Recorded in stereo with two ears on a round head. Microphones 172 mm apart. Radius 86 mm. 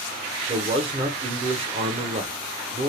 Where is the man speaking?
30° right (ahead or behind), 0.6 m.